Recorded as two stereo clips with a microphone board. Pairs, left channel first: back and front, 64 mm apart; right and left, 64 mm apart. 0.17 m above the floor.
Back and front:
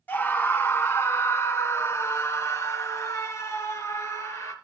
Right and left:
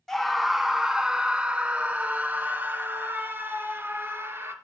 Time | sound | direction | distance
0.1 | a scream | 165° right | 1.3 m